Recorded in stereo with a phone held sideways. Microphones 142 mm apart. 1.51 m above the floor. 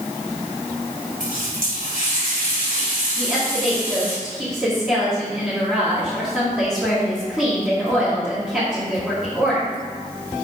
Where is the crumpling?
No crumpling in this recording.